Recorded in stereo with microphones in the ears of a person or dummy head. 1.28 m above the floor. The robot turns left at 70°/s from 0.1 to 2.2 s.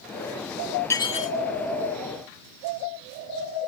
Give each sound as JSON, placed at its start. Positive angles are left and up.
{"t": 0.9, "sound": "dishes clattering", "azimuth_deg": 170}